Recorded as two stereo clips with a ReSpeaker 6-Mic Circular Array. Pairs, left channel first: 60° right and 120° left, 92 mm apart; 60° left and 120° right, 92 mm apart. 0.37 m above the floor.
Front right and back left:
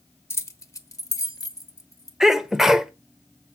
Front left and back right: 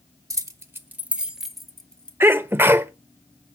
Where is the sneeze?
160° right, 0.9 m.